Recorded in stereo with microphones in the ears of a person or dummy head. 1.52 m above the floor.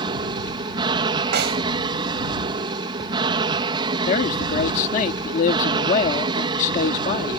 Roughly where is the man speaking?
Left.